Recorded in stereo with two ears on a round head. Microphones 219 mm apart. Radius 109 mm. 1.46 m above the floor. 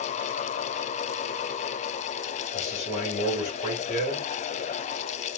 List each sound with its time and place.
2.5 s a man speaking: 30° left (ahead or behind), 2.5 m